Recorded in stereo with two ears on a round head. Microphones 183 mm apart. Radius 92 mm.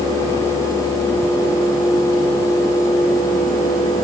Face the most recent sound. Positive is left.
No sound to turn to.